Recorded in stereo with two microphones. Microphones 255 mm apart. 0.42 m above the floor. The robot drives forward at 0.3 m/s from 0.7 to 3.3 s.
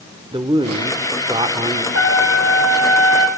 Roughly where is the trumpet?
Left.